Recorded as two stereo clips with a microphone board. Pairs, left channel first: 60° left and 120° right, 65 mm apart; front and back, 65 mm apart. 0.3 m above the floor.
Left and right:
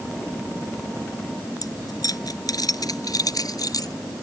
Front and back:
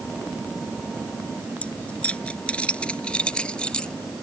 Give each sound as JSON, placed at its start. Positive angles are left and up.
{"t": 1.6, "sound": "keys jangling", "azimuth_deg": 70}